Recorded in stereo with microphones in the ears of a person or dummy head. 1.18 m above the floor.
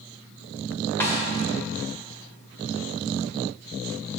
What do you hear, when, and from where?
1.0 s a snare drum: 10° left (ahead or behind), 1.7 m